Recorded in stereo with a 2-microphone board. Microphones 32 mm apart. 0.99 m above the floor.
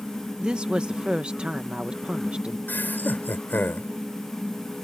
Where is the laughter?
85° left.